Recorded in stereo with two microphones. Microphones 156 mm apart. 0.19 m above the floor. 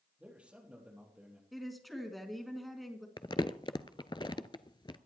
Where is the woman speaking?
Centre (ahead or behind), 2 m.